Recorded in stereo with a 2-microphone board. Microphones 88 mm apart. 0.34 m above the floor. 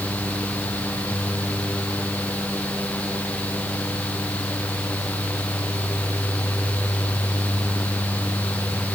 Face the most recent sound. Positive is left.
No sound to turn to.